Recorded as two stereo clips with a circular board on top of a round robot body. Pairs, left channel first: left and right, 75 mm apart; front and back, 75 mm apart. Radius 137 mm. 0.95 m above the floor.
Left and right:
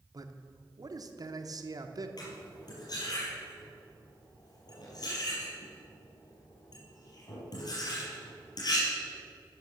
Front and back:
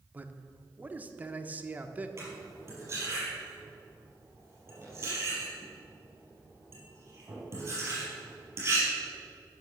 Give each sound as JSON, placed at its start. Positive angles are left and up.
{"t": 0.1, "sound": "a man speaking", "azimuth_deg": -115, "distance_m": 1.1}
{"t": 2.2, "sound": "cutlery clinking", "azimuth_deg": 125, "distance_m": 5.0}